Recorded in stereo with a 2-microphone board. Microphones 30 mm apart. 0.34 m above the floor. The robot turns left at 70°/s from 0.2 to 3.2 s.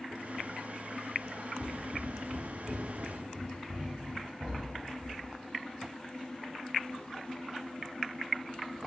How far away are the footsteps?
About 1.1 m.